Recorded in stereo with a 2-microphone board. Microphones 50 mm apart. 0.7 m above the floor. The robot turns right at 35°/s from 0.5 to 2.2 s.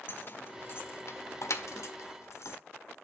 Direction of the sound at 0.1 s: 45° left (ahead or behind).